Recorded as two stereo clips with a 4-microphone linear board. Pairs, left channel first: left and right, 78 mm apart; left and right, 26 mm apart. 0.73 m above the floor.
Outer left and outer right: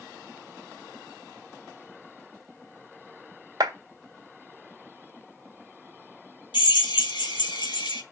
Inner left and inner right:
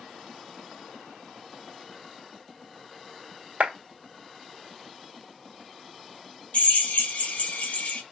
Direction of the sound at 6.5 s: 80° left.